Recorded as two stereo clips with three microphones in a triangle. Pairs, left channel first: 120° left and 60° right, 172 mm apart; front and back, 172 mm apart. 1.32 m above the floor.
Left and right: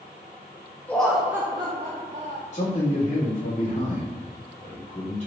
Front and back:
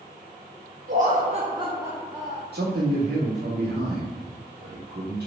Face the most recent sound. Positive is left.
turn(degrees=175)